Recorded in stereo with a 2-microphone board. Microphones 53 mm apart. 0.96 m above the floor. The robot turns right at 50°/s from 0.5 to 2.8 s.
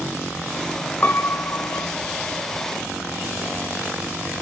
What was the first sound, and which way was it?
A piano, 40° left.